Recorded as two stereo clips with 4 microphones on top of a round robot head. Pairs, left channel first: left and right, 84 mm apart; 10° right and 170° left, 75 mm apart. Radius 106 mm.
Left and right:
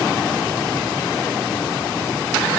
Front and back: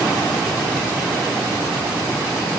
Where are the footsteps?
No footsteps in this recording.